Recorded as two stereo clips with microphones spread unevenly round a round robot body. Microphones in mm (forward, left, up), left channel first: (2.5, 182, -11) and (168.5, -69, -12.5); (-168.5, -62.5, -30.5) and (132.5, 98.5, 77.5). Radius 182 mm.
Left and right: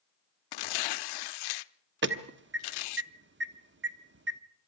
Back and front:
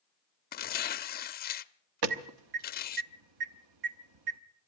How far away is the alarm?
About 1.3 m.